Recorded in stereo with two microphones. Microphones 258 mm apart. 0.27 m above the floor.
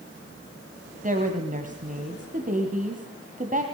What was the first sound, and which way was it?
A woman speaking, 30° right (ahead or behind).